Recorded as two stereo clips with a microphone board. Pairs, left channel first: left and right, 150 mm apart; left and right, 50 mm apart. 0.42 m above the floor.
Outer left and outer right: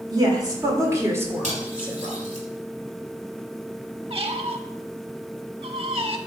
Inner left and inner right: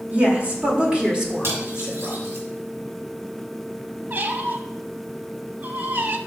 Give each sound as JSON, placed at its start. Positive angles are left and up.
{"t": 0.1, "sound": "a woman speaking", "side_deg": -30, "distance_m": 1.5}
{"t": 1.4, "sound": "cutlery clinking", "side_deg": -60, "distance_m": 1.9}
{"t": 4.1, "sound": "a squeak", "side_deg": -45, "distance_m": 0.5}